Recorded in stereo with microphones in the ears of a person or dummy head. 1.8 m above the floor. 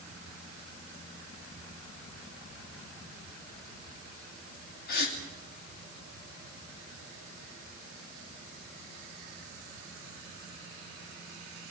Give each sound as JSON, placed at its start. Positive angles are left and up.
{"t": 4.9, "sound": "a gasp", "side_deg": 65, "distance_m": 2.5}